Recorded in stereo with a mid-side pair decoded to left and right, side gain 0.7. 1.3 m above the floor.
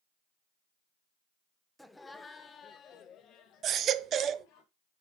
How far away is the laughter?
About 0.8 m.